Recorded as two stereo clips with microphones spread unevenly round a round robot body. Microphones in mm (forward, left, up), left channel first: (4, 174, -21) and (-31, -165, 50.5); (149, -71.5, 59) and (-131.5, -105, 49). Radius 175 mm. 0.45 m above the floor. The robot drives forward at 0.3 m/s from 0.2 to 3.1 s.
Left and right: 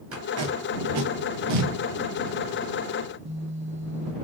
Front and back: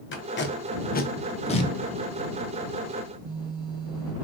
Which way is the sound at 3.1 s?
150° right.